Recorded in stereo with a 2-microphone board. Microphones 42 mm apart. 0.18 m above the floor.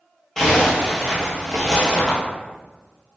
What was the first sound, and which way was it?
A zipper, 10° left (ahead or behind).